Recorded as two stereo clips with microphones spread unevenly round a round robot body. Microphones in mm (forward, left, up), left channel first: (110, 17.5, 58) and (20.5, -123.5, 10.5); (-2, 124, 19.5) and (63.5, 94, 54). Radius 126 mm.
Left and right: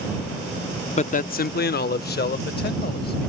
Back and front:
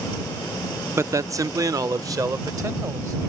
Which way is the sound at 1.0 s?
45° left.